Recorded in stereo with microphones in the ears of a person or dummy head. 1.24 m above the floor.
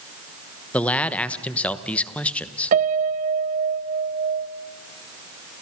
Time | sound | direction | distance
0.7 | a man speaking | 5° left (ahead or behind) | 1.1 m
2.7 | a piano | 45° right (ahead or behind) | 0.9 m